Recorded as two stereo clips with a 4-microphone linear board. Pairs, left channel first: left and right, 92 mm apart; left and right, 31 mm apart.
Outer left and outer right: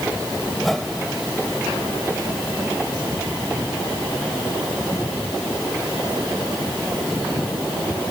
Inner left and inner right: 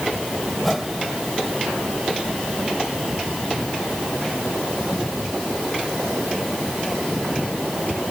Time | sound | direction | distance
0.6 | a whoosh | 5° left (ahead or behind) | ?